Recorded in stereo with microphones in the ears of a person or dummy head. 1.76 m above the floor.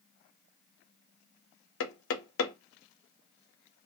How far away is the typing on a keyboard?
I don't hear typing on a keyboard.